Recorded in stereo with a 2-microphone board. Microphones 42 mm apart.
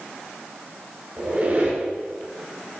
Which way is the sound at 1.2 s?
40° right (ahead or behind).